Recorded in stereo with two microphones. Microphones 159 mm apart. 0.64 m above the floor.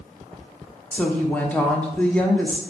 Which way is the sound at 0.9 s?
10° left (ahead or behind).